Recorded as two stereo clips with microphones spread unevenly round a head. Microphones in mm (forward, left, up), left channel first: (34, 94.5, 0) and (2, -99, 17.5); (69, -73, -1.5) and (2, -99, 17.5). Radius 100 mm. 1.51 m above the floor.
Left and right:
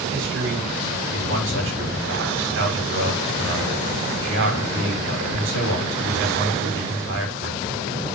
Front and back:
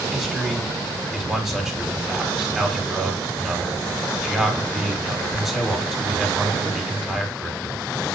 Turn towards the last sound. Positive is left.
turn(degrees=-75)